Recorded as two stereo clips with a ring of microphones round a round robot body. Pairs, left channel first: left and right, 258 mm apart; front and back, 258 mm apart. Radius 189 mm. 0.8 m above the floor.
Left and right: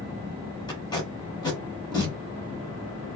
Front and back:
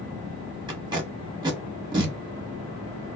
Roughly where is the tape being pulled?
Behind left.